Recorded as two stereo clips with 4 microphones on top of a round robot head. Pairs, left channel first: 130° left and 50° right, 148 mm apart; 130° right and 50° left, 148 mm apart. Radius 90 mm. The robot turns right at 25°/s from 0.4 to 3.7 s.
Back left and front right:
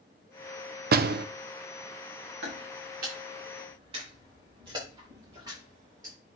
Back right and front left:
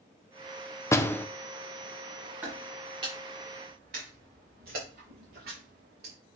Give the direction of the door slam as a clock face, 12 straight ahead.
2 o'clock.